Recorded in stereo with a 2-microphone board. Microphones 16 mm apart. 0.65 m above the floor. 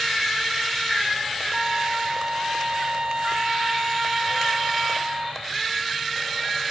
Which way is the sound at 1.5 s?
55° right (ahead or behind).